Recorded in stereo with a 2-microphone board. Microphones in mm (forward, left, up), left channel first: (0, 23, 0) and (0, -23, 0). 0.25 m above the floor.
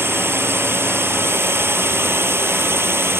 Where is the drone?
60° right (ahead or behind).